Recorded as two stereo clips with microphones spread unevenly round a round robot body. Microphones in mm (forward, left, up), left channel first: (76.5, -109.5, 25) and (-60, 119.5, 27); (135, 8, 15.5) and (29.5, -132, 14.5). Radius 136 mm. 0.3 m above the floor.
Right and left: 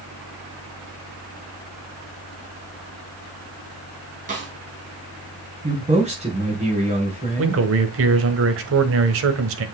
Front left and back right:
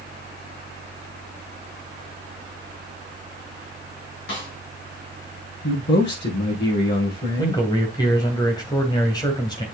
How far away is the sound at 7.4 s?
About 1.4 m.